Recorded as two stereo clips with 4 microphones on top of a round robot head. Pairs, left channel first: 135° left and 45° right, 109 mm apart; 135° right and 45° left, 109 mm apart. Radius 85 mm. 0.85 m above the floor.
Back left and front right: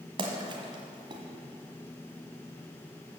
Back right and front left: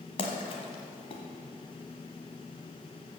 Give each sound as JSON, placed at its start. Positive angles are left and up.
{"t": 0.2, "sound": "a splash", "azimuth_deg": -90, "distance_m": 1.4}